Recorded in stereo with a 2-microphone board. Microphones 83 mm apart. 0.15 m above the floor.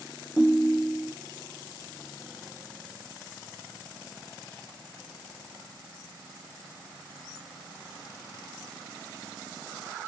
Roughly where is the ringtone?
Centre.